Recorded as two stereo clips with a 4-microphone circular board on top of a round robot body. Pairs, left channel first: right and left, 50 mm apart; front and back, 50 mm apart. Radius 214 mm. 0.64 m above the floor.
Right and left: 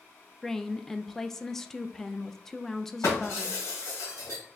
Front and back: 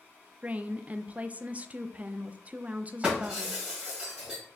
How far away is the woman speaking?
About 0.6 m.